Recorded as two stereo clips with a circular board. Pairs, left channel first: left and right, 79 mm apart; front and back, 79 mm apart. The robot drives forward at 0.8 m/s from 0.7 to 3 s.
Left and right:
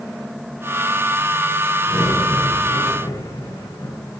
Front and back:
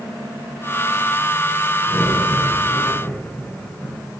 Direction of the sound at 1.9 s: 60° left.